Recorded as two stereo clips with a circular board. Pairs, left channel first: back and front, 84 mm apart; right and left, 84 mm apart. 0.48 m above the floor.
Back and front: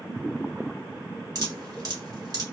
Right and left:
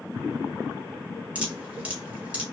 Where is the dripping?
20° left, 1.2 m.